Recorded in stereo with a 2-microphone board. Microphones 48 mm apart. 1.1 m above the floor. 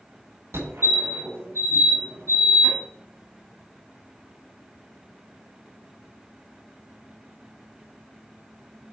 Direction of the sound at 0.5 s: 75° right (ahead or behind).